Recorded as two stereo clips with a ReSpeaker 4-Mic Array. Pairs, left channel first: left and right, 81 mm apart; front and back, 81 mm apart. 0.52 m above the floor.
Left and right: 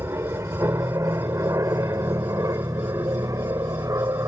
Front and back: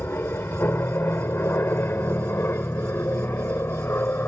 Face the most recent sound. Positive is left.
turn(degrees=-55)